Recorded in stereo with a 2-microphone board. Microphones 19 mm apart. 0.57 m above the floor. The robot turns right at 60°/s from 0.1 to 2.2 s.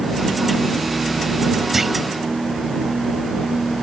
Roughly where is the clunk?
Centre.